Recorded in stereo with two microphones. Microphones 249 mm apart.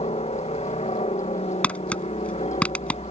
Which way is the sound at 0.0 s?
25° left (ahead or behind).